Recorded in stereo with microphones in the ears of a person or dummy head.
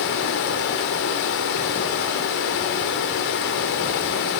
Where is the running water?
50° left (ahead or behind), 1.8 m.